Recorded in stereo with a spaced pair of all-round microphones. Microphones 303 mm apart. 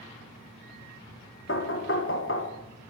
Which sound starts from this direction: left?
Knocking, at 1.5 s.